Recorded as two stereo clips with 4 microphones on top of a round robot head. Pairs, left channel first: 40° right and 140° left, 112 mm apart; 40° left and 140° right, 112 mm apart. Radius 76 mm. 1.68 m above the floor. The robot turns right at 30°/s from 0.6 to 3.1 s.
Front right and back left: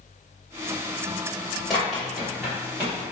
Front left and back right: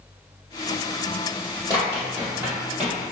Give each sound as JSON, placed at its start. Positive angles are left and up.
{"t": 1.7, "sound": "running footsteps", "azimuth_deg": -135, "distance_m": 1.8}